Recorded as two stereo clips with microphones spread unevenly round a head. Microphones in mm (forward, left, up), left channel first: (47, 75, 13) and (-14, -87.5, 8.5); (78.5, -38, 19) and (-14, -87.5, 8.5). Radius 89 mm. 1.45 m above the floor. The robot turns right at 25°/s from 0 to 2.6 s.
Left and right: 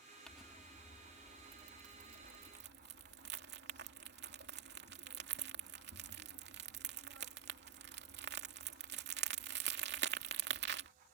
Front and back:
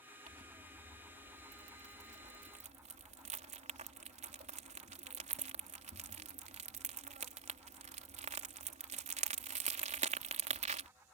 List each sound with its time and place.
0.3 s crumpling: 155° left; by 10.9 s 145° right